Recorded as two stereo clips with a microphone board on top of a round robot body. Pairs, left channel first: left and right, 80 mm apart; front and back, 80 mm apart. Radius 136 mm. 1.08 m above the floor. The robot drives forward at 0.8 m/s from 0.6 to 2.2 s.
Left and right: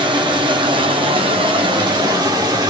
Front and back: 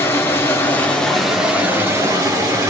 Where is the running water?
65° right, 1.2 m; by 2.7 s 130° right, 1.4 m.